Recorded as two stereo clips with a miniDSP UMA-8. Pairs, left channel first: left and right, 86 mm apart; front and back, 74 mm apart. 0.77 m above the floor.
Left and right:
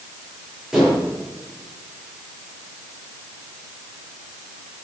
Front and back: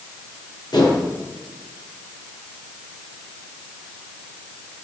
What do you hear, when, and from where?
0.7 s dishes clattering: 5° right, 9 m